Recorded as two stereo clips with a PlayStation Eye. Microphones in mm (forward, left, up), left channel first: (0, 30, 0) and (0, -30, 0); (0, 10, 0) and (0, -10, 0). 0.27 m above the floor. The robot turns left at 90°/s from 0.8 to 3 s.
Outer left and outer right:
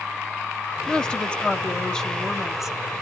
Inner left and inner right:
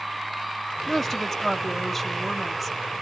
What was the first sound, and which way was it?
A woman speaking, 10° left (ahead or behind).